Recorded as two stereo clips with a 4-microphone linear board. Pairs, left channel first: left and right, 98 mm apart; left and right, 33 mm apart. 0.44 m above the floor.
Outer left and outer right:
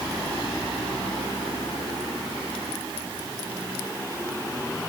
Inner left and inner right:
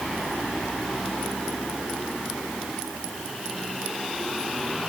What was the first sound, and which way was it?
Only background noise.